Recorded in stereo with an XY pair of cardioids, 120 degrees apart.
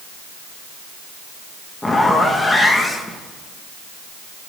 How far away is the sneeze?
I don't hear a sneeze.